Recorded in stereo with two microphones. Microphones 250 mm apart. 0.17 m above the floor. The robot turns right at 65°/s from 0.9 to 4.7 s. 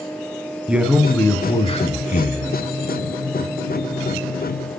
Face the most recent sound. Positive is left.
turn(degrees=-120)